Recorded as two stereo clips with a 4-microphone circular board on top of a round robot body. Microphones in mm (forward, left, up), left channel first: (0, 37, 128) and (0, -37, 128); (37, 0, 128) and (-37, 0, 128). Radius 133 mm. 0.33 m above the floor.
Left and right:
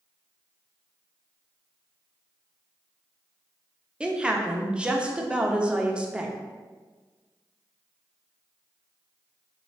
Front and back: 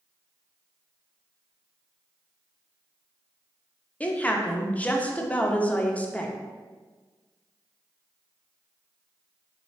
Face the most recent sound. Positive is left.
turn(degrees=-35)